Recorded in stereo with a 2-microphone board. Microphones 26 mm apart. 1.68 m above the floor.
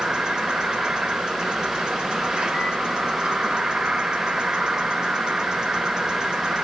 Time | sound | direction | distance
0.0 | an insect | 30° right (ahead or behind) | 1.0 m